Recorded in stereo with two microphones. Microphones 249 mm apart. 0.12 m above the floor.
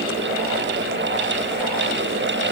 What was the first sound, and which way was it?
Only background noise.